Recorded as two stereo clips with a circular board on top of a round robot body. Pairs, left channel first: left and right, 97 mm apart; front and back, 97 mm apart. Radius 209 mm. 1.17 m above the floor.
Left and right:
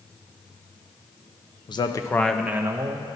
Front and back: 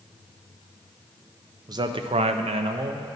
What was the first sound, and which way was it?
A man speaking, 130° left.